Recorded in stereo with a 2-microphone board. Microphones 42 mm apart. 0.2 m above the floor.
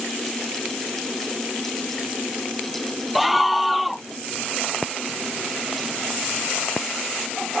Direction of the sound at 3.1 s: Centre (ahead or behind).